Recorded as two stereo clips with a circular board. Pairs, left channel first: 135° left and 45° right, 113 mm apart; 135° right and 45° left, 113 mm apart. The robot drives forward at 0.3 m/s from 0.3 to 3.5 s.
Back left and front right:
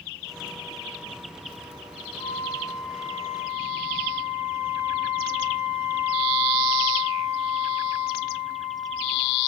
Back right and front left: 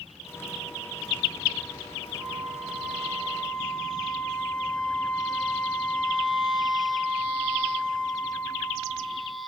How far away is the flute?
About 1.3 m.